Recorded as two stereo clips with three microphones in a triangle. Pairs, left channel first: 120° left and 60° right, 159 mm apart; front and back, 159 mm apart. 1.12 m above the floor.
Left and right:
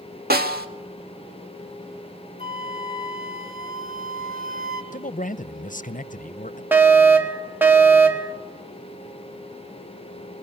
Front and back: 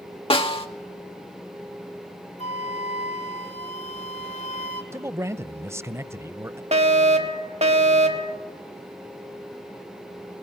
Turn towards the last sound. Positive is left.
turn(degrees=-135)